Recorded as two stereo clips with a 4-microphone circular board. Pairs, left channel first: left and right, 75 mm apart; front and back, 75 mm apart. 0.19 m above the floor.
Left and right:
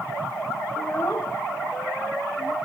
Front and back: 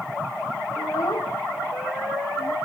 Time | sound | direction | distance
0.8 | a child speaking | 35° left | ?